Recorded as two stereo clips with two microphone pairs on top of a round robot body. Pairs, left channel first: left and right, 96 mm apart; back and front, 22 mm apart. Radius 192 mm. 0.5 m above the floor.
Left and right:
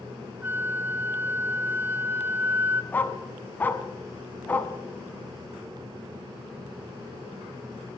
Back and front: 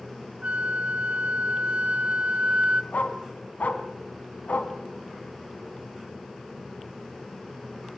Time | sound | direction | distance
0.4 | a flute | 20° right | 0.7 m
2.9 | a dog barking | 165° left | 1.6 m